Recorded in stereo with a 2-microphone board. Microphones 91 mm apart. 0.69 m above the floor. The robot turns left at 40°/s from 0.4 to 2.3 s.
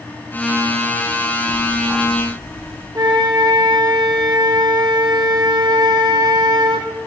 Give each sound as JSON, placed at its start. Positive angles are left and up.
{"t": 1.5, "sound": "ticking", "azimuth_deg": 5, "distance_m": 3.5}
{"t": 3.0, "sound": "a flute", "side_deg": -45, "distance_m": 0.8}